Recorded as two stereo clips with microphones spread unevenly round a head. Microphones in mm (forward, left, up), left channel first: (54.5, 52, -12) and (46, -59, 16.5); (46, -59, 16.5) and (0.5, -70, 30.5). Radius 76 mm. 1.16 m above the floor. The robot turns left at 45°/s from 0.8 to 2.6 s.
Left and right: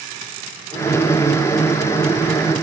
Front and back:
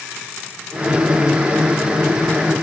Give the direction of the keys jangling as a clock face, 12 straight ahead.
No keys jangling in this recording.